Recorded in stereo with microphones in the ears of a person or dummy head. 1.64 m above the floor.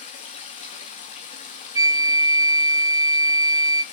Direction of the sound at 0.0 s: 35° left (ahead or behind).